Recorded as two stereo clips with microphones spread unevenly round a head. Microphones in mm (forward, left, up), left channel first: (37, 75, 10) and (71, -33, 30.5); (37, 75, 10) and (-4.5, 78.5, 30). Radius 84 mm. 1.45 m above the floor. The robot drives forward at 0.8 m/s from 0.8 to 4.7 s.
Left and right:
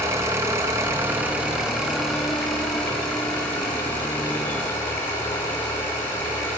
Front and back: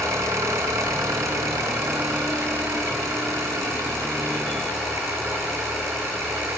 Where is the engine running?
145° right, 1.6 m; by 6.6 s 170° right, 4.5 m.